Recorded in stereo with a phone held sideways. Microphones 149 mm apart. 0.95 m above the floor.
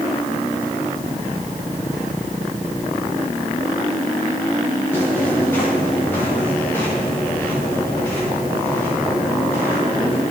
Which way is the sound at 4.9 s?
15° left (ahead or behind).